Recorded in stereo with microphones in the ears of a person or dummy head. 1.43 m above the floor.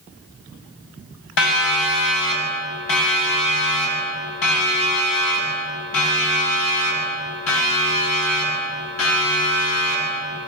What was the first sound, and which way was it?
A siren, 70° left (ahead or behind).